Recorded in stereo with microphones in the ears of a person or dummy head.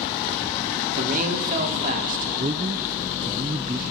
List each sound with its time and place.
1.0 s a man speaking: 50° right (ahead or behind), 3.5 m
2.4 s a man speaking: 25° right (ahead or behind), 0.6 m